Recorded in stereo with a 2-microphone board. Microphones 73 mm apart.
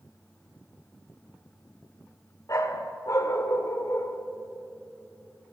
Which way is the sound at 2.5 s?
45° left (ahead or behind).